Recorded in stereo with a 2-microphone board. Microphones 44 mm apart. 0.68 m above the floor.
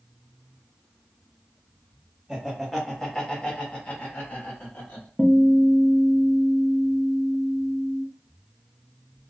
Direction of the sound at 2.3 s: 10° right (ahead or behind).